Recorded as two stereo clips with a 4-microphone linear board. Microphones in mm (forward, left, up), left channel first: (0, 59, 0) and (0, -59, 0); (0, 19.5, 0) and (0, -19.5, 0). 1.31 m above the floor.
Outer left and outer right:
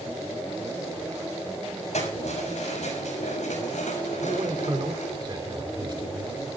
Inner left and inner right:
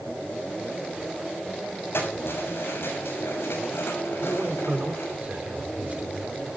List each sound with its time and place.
1.9 s keys jangling: 70° left (ahead or behind), 7 m; by 5.2 s 90° left, 6 m
4.2 s a man speaking: 40° right (ahead or behind), 3.5 m